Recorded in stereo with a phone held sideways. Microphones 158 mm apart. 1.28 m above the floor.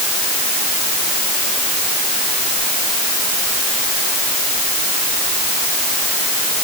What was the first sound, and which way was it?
Only background noise.